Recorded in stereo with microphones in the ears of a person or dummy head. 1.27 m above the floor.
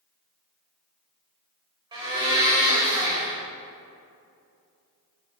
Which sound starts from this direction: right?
A blender, at 1.9 s.